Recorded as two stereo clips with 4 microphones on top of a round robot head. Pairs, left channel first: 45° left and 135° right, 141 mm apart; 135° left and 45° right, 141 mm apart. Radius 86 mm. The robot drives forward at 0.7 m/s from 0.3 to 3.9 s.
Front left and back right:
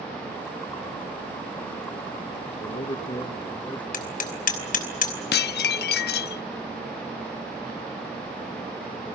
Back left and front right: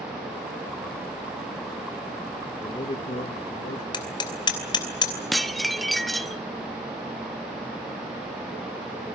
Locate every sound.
2.5 s a man speaking: 70° left, 1.3 m; by 3.8 s 125° left, 1.4 m
3.9 s hammering: 75° left, 3 m
5.3 s dishes clattering: 45° left, 0.6 m